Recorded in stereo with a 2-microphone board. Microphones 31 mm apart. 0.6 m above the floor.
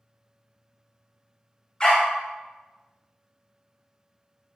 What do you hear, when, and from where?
1.8 s a dog barking: 25° left (ahead or behind), 0.6 m